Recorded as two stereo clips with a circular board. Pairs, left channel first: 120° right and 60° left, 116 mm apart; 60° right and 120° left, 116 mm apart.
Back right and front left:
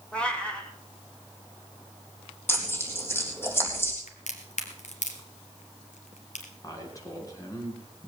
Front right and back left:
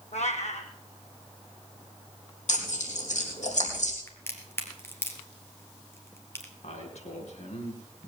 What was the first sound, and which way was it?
A cat meowing, 40° right.